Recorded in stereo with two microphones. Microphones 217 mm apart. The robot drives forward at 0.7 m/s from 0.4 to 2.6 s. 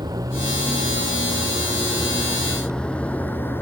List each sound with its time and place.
0.0 s a vehicle: 15° right (ahead or behind); by 3.6 s 10° left (ahead or behind)